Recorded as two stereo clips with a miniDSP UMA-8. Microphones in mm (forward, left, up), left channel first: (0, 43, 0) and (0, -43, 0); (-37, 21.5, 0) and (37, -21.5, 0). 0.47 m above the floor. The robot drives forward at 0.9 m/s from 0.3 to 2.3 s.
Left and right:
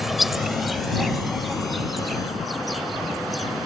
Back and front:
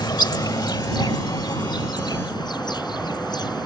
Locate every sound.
0.0 s an insect: 175° right; by 3.7 s straight behind